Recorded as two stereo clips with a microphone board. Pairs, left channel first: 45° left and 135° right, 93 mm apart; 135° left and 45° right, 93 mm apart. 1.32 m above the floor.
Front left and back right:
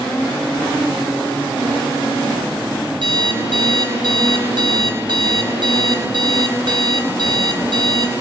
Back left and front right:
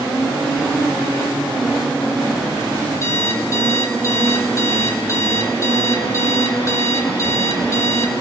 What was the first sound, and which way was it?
An alarm clock, 165° right.